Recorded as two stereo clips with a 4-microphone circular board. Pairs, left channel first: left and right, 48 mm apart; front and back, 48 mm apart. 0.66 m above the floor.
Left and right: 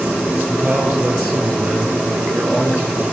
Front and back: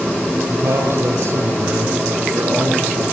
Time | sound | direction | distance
0.5 | a man speaking | 140° right | 9.5 m